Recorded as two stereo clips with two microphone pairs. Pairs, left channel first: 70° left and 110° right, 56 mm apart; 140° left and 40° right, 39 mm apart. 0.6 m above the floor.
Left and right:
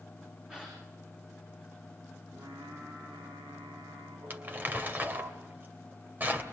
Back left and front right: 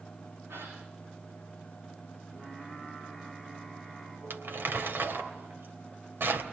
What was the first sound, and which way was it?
A gasp, 40° right.